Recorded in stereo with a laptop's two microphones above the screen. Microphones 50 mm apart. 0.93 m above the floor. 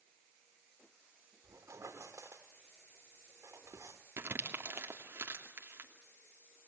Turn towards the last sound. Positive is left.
turn(degrees=-50)  # may be behind; listen again after turning